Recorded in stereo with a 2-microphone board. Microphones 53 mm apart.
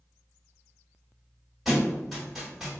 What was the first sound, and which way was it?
A thud, 5° right (ahead or behind).